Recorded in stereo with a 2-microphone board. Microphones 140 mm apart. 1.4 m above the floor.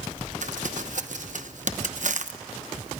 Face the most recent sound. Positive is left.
turn(degrees=-60)  # may be behind; listen again after turning